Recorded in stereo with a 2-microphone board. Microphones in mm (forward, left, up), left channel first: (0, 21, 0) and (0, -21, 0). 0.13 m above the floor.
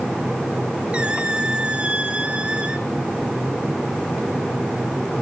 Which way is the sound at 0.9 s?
25° right (ahead or behind).